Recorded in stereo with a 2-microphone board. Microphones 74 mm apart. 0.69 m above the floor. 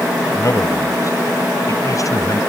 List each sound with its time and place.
0.3 s a man speaking: 45° left (ahead or behind); by 2.4 s 50° left (ahead or behind)